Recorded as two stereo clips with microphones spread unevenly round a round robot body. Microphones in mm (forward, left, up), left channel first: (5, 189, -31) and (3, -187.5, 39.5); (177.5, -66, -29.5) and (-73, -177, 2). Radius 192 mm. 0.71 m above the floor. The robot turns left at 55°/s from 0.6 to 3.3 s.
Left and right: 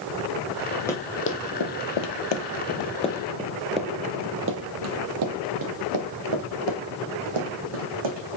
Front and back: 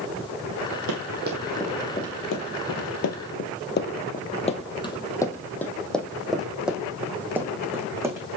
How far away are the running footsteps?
About 1.7 m.